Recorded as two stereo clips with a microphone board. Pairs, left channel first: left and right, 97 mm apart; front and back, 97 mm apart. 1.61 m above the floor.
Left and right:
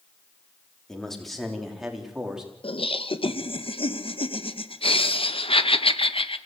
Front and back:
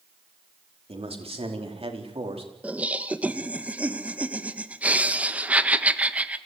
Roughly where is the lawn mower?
No lawn mower in this recording.